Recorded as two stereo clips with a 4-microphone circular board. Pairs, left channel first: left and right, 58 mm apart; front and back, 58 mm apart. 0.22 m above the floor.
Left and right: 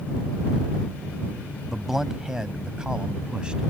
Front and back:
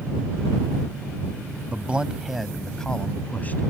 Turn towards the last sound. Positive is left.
turn(degrees=-25)